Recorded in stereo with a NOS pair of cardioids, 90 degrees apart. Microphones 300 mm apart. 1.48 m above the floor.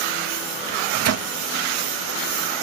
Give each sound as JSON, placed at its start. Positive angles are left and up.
{"t": 0.7, "sound": "a microwave", "azimuth_deg": -55}